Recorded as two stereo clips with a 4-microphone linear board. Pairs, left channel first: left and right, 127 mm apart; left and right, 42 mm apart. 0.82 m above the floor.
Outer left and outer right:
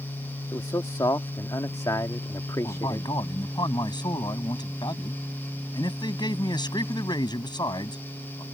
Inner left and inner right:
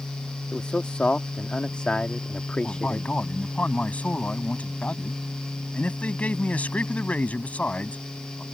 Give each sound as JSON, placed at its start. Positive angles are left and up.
{"t": 0.5, "sound": "a man speaking", "side_deg": 30}
{"t": 2.6, "sound": "a man speaking", "side_deg": 35}